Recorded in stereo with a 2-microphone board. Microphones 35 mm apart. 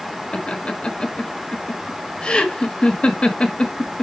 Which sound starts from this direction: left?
Laughter, at 0.3 s.